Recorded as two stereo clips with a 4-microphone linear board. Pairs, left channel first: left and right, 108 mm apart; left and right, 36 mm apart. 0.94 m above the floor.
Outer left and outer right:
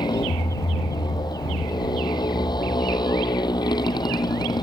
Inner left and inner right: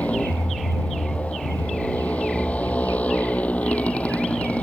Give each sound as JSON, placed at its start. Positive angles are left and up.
{"t": 0.0, "sound": "a motorcycle", "side_deg": 40}